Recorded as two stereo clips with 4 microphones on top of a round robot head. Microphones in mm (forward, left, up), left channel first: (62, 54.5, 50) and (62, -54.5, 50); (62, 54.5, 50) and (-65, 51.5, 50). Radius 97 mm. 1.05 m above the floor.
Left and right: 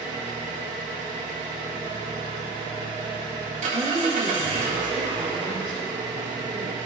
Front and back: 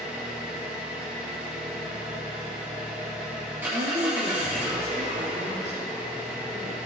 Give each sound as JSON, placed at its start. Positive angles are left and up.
{"t": 0.0, "sound": "an engine running", "azimuth_deg": -100, "distance_m": 1.9}
{"t": 3.7, "sound": "a woman speaking", "azimuth_deg": -145, "distance_m": 2.5}